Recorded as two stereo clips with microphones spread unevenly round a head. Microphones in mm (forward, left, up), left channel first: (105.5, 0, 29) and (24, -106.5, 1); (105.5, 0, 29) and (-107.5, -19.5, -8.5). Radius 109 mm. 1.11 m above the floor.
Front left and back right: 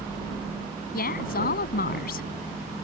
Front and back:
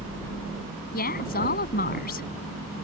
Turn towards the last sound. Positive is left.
turn(degrees=55)